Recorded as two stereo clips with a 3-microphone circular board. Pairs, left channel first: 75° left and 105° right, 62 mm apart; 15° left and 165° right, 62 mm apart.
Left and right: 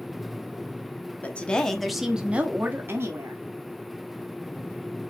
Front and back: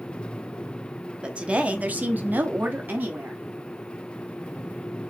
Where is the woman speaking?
130° left, 0.8 m; by 3.4 s 110° right, 1.0 m.